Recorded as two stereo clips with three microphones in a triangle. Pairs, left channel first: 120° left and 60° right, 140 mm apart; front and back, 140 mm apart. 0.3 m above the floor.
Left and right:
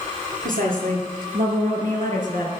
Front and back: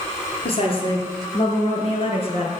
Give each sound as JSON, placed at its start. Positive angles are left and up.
{"t": 0.4, "sound": "a woman speaking", "azimuth_deg": -50, "distance_m": 5.5}